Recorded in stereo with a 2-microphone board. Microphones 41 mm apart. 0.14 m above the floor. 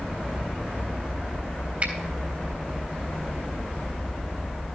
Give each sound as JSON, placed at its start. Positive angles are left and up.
{"t": 1.8, "sound": "a finger snap", "side_deg": -35, "distance_m": 3.5}